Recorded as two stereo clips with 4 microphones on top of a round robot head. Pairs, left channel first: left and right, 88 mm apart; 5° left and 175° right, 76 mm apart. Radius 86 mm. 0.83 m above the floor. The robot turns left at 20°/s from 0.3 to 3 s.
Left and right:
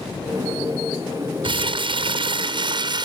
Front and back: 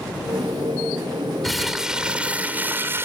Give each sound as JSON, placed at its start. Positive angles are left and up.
{"t": 1.4, "sound": "crumpling", "azimuth_deg": -85, "distance_m": 0.8}